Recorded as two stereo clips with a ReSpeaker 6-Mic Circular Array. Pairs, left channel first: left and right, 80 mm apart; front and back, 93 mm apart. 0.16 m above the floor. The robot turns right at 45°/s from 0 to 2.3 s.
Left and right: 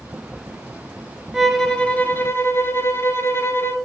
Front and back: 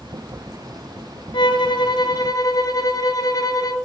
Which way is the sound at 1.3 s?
5° right.